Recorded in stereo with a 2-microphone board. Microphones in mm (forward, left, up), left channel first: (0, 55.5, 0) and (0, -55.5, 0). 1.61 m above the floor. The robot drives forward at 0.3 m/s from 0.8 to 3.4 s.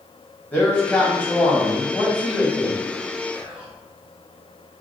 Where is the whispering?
45° right (ahead or behind), 1.0 m.